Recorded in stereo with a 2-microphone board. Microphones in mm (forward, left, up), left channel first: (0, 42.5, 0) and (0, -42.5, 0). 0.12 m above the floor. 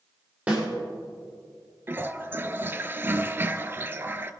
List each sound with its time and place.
0.5 s a snare drum: 15° right (ahead or behind), 5.5 m
1.9 s a toilet flushing: 25° right (ahead or behind), 0.6 m